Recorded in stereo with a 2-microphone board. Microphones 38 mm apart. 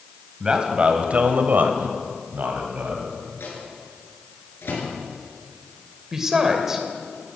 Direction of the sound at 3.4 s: 80° left.